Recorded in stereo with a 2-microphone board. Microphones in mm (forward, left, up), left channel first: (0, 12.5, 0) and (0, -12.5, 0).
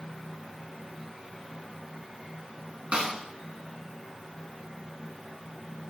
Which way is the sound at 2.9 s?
55° right (ahead or behind).